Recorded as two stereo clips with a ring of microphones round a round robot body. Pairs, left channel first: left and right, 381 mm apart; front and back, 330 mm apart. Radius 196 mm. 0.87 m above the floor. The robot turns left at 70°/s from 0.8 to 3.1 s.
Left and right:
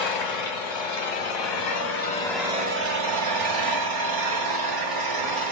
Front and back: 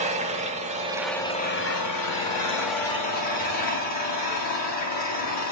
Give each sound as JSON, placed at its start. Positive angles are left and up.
{"t": 0.0, "sound": "an engine running", "azimuth_deg": 110, "distance_m": 2.0}